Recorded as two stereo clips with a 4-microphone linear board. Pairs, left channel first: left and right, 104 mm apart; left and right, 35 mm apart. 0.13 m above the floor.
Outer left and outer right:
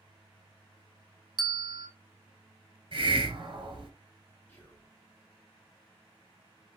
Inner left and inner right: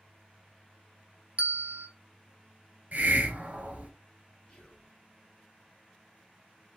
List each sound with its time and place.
1.4 s a bell: 45° right (ahead or behind), 0.6 m
2.9 s a hiss: 55° right (ahead or behind), 0.8 m
4.5 s whispering: 20° left (ahead or behind), 1.2 m